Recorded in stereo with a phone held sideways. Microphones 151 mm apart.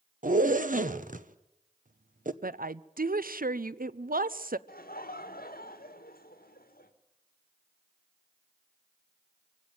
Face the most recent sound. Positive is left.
turn(degrees=80)